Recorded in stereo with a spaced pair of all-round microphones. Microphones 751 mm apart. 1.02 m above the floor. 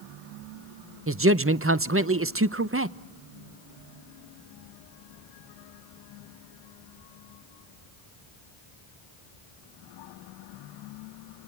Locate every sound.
1.1 s a man speaking: 20° right (ahead or behind), 0.6 m